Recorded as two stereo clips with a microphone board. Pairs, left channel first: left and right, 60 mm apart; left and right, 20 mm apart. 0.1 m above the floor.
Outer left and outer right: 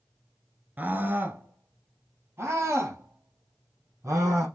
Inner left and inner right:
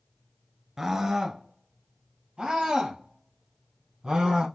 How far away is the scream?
About 1.6 m.